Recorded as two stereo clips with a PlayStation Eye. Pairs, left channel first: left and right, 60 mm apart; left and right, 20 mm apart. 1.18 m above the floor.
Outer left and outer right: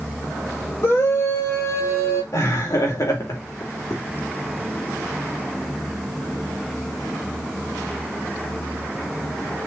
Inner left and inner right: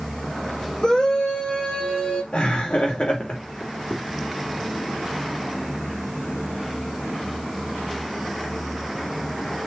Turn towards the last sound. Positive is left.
turn(degrees=75)  # may be behind; listen again after turning